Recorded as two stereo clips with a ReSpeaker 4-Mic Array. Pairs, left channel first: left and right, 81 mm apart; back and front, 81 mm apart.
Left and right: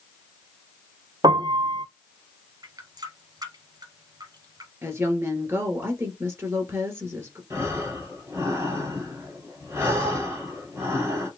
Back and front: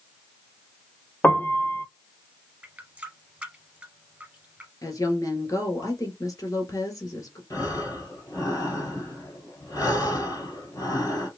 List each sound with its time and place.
1.2 s a piano: 110° right, 0.6 m
2.6 s a running tap: 75° right, 1.8 m
4.8 s a woman speaking: 145° right, 2 m
7.5 s breathing: 140° right, 3 m